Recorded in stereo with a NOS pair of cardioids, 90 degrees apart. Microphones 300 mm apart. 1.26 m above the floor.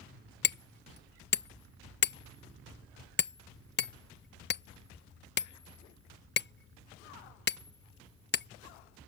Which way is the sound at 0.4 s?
35° left.